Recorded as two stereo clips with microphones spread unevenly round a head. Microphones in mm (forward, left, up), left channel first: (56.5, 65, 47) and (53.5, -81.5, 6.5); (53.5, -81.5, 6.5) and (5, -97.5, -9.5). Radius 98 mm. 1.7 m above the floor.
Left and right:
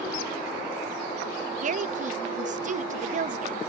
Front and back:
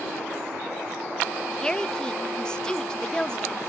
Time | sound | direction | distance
1.6 | a woman speaking | 55° right | ?